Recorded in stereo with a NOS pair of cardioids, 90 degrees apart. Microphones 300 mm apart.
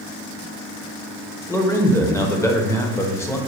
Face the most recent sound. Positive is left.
turn(degrees=10)